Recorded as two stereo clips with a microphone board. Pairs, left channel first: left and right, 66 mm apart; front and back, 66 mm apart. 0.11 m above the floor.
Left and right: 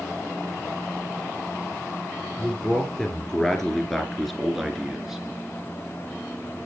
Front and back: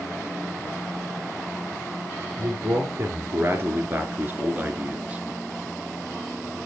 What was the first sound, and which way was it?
A man speaking, 160° left.